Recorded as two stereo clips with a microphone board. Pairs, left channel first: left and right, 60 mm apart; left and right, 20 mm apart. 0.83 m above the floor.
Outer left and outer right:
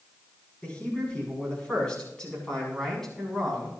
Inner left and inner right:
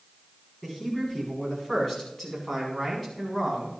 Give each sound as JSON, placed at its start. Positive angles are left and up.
{"t": 0.6, "sound": "a man speaking", "side_deg": 20, "distance_m": 7.5}